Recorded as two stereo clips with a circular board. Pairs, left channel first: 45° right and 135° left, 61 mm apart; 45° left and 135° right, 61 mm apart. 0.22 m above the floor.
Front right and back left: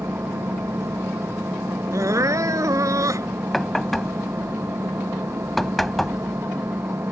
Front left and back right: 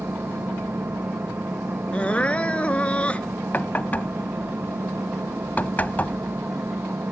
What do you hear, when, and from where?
0.0 s an engine running: 175° left
1.9 s crying: 115° left
3.5 s knocking: 35° left